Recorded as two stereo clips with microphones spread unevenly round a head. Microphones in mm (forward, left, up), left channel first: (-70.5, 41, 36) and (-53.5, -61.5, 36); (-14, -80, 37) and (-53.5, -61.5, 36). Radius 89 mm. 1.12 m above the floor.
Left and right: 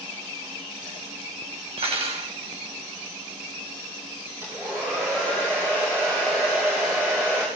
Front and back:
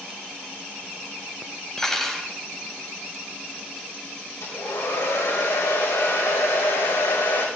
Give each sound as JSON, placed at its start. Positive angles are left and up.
{"t": 1.8, "sound": "cutlery clinking", "azimuth_deg": -105, "distance_m": 4.5}
{"t": 4.4, "sound": "a hair dryer", "azimuth_deg": -5, "distance_m": 7.0}